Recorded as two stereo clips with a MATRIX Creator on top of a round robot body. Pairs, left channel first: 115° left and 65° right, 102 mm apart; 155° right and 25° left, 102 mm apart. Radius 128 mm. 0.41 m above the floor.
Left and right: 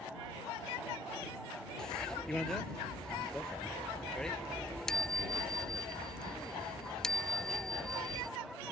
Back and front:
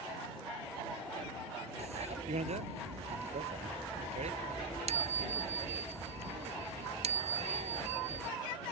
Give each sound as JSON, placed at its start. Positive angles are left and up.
{"t": 1.8, "sound": "a bicycle bell", "azimuth_deg": 30}